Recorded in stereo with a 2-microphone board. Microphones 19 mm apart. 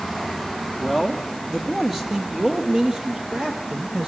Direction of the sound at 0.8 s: 5° left (ahead or behind).